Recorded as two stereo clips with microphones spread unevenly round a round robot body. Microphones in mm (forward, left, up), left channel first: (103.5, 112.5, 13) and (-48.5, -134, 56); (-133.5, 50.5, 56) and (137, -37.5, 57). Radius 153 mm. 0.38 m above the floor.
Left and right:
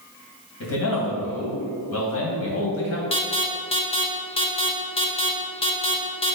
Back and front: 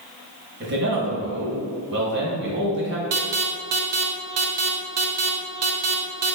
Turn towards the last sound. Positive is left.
turn(degrees=-5)